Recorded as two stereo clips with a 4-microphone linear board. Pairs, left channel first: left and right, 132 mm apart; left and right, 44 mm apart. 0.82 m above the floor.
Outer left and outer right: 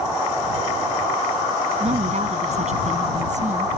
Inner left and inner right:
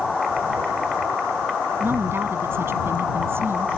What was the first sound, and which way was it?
A woman speaking, 60° right (ahead or behind).